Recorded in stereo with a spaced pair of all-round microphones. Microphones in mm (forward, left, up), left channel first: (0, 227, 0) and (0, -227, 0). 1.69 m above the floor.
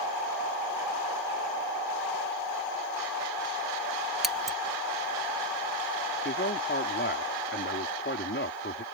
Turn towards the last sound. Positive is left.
turn(degrees=25)  # may be behind; listen again after turning